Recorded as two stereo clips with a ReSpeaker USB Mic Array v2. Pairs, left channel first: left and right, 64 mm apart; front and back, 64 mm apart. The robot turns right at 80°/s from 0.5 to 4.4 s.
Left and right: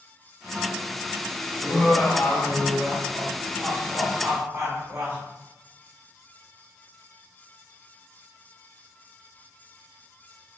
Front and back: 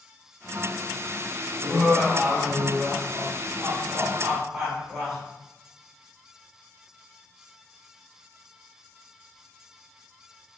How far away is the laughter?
About 1.3 m.